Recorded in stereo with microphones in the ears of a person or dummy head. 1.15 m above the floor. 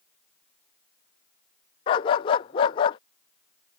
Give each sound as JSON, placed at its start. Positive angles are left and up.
{"t": 1.9, "sound": "a dog barking", "side_deg": 15}